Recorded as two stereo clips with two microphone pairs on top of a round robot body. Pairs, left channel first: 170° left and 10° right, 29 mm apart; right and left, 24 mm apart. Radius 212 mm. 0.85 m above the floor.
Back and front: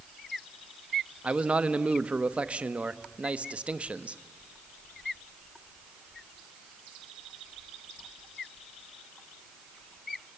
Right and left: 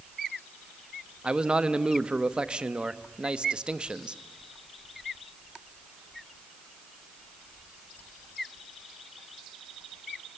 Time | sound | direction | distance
1.2 | a man speaking | 40° left | 1.2 m